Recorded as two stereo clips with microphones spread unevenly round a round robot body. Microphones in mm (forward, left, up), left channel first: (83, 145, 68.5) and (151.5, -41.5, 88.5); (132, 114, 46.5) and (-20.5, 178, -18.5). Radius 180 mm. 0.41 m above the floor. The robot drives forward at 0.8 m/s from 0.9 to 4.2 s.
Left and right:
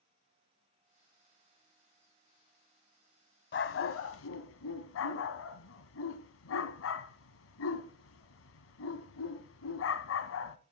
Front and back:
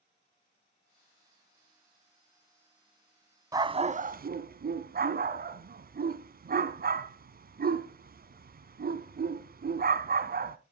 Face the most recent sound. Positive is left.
turn(degrees=115)